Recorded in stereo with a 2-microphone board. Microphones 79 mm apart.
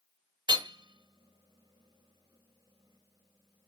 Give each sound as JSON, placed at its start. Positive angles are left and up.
{"t": 0.5, "sound": "hammering", "side_deg": -75, "distance_m": 1.4}